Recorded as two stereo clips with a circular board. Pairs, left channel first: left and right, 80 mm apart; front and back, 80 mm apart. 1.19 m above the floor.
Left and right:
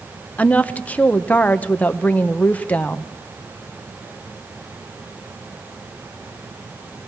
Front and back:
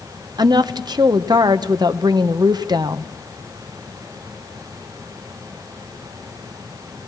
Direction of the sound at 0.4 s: 160° left.